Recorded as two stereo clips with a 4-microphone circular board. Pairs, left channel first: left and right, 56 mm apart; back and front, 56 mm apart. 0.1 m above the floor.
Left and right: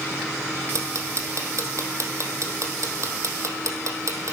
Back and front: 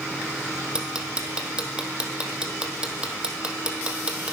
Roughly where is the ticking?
Right.